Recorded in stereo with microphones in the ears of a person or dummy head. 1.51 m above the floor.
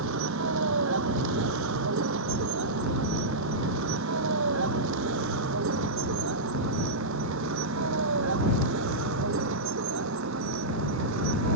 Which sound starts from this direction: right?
A vehicle, at 0.0 s.